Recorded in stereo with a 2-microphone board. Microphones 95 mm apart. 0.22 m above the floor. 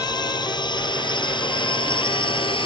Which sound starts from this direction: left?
A drone, at 0.0 s.